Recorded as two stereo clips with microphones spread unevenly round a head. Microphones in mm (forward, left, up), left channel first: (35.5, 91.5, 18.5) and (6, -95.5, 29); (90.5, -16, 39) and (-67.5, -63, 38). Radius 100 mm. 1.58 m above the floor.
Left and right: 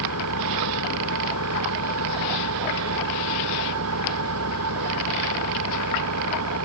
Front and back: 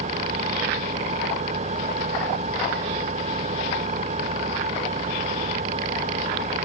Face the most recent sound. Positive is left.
turn(degrees=-115)